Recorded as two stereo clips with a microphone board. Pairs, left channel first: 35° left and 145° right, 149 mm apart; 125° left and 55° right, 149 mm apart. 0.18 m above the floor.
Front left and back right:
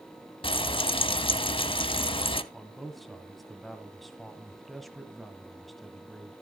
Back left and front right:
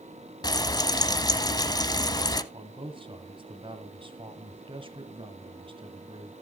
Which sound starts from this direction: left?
Frying, at 0.4 s.